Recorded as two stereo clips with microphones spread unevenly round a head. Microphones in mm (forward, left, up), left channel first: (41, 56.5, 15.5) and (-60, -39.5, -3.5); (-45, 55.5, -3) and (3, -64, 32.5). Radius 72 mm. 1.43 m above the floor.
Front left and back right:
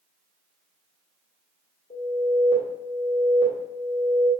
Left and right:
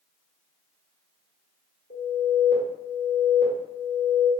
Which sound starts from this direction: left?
An alarm, at 1.9 s.